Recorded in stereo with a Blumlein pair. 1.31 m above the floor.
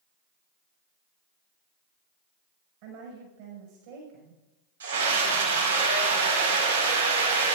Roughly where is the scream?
Ahead right.